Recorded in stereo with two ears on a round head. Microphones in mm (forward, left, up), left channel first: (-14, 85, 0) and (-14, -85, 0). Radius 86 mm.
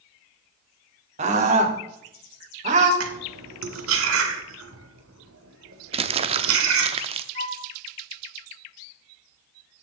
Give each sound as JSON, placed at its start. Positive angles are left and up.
{"t": 1.2, "sound": "a scream", "side_deg": -35, "distance_m": 2.5}
{"t": 3.0, "sound": "cutlery clinking", "side_deg": -75, "distance_m": 2.0}
{"t": 5.9, "sound": "crumpling", "side_deg": -35, "distance_m": 0.9}
{"t": 7.3, "sound": "a flute", "side_deg": -70, "distance_m": 1.7}